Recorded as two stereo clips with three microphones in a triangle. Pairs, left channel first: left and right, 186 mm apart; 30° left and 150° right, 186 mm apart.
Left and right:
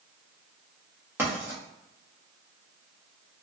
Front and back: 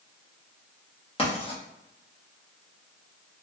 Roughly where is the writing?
Ahead.